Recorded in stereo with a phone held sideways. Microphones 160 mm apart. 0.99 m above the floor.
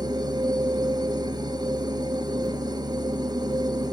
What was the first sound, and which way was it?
A machine running, 25° right (ahead or behind).